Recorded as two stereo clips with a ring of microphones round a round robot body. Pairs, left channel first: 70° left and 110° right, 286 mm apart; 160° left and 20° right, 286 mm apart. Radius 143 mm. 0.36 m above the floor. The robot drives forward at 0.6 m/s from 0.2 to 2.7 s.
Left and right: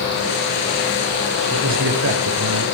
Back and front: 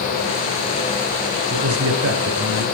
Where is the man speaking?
65° right, 6.5 m; by 2.6 s 70° right, 6 m.